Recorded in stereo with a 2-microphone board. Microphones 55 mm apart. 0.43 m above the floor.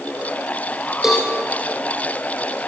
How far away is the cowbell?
About 3 m.